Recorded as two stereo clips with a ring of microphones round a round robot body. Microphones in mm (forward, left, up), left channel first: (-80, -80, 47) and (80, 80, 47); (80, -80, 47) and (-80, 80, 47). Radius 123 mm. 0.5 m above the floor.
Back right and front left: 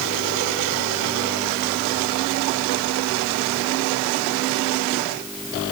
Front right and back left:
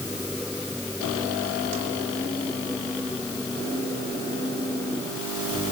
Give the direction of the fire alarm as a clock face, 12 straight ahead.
I don't hear a fire alarm.